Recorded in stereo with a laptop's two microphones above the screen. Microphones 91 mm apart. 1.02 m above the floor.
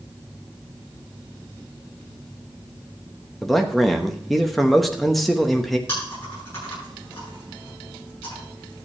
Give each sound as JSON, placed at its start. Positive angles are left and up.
{"t": 3.4, "sound": "a man speaking", "side_deg": 0, "distance_m": 0.9}
{"t": 5.9, "sound": "chewing", "side_deg": 30, "distance_m": 8.5}